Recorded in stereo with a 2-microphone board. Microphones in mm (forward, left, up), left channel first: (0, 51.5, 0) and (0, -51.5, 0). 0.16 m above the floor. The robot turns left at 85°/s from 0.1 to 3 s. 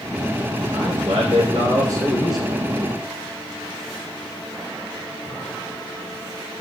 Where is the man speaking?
40° right, 6.5 m; by 2.6 s 165° left, 6.5 m.